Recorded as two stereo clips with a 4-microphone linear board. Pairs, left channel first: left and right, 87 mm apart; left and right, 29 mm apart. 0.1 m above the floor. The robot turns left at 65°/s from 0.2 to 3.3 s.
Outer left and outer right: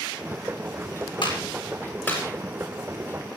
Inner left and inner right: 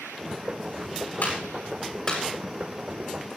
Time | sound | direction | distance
1.2 | a clap | 75° left (ahead or behind) | 7.5 m